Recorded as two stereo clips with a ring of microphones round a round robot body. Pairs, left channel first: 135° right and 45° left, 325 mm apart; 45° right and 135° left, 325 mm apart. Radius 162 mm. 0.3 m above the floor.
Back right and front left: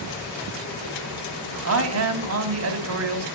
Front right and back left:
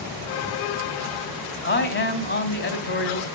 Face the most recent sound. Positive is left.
turn(degrees=5)